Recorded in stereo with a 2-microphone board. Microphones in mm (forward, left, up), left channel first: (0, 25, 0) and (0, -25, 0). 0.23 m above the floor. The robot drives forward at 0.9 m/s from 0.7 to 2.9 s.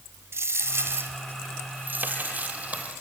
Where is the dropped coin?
60° right (ahead or behind), 1.7 m; by 3.0 s 30° right (ahead or behind), 3 m.